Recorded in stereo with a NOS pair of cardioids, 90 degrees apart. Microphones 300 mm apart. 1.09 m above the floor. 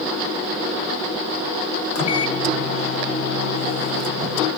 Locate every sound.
1.9 s a microwave: 50° left, 0.7 m